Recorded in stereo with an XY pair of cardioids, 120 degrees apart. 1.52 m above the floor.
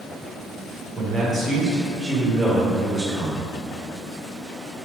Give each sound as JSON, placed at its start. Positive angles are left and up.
{"t": 0.9, "sound": "a man speaking", "azimuth_deg": -20, "distance_m": 1.5}